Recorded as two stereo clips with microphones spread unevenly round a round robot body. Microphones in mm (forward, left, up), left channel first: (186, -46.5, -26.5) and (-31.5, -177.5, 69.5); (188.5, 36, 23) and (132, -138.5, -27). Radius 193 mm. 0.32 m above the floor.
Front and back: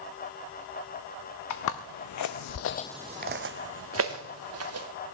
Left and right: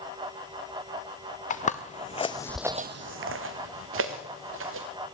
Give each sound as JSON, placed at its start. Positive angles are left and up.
{"t": 1.5, "sound": "footsteps", "azimuth_deg": 25, "distance_m": 1.9}